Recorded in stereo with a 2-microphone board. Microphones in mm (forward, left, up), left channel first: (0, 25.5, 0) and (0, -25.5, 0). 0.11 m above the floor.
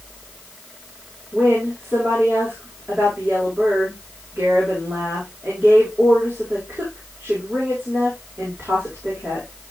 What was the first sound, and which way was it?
A woman speaking, 45° right (ahead or behind).